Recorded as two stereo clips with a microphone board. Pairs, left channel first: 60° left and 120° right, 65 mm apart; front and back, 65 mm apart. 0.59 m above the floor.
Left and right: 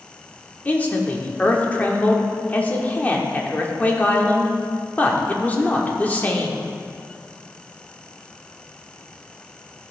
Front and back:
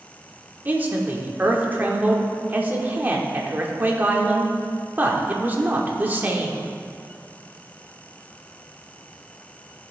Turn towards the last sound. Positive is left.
turn(degrees=125)